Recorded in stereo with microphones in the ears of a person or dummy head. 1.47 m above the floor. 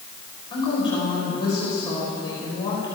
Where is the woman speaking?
30° left (ahead or behind), 6 m.